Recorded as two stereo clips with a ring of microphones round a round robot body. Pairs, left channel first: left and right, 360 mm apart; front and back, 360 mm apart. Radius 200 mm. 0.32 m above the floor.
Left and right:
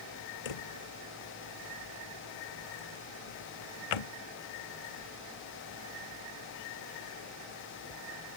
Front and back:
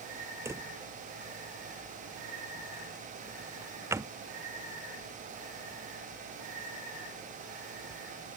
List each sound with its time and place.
0.5 s a drawer: 95° left